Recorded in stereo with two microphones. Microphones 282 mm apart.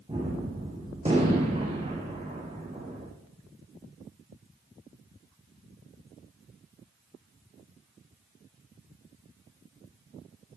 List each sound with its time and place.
0.1 s a gunshot: 20° right (ahead or behind), 5.5 m